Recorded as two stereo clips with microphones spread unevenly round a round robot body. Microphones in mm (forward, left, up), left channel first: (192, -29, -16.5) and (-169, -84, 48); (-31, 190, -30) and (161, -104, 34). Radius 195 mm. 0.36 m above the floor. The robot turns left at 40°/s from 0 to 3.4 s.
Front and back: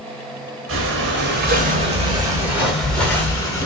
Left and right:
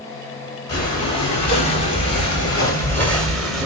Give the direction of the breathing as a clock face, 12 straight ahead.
7 o'clock.